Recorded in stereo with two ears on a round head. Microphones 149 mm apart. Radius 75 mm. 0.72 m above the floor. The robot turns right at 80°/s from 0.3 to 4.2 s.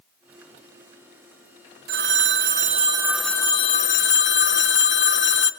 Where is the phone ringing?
105° right, 0.8 m; by 5.5 s 80° left, 0.8 m.